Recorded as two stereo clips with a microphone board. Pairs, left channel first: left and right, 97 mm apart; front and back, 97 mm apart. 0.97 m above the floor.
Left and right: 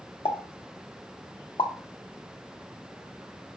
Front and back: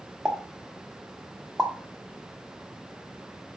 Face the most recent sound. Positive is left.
turn(degrees=90)